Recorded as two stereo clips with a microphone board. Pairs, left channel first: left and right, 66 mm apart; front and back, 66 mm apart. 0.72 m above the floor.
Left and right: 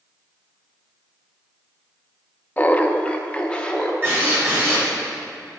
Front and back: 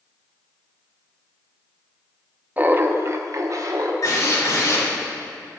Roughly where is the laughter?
Behind left.